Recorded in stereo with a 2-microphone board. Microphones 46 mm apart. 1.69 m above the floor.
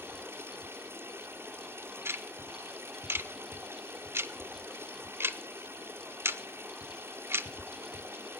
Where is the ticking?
65° right (ahead or behind), 1.0 m.